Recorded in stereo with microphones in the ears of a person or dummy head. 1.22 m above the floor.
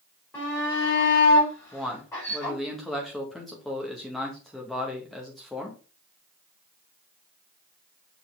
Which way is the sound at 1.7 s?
5° right (ahead or behind).